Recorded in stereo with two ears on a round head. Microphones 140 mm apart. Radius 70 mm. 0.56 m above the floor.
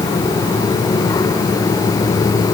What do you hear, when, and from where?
Only background noise.